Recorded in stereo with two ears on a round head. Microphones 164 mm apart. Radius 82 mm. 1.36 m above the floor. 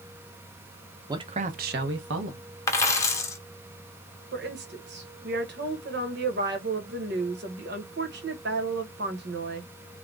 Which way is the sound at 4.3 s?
60° right (ahead or behind).